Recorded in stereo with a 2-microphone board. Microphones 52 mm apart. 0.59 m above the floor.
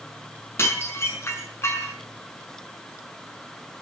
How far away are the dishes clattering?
About 5 m.